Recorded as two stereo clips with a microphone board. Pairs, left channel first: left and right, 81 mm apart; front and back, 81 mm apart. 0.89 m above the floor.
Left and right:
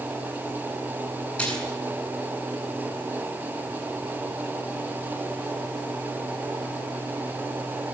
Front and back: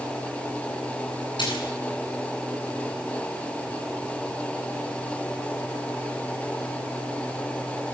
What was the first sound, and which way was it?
A splash, 15° left.